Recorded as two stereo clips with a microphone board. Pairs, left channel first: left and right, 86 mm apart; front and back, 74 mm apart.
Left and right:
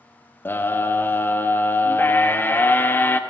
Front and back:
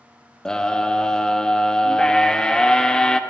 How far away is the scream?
About 0.6 m.